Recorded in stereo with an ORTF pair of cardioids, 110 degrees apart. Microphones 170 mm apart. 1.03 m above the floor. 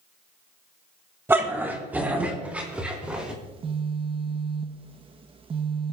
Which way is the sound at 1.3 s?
15° right.